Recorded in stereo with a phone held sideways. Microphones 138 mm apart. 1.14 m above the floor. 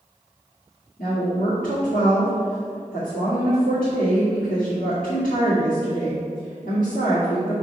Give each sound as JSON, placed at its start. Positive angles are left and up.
{"t": 1.0, "sound": "a woman speaking", "side_deg": 85, "distance_m": 2.5}